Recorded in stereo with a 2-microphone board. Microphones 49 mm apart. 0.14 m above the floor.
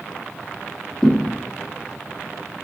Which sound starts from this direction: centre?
A thud, at 1.0 s.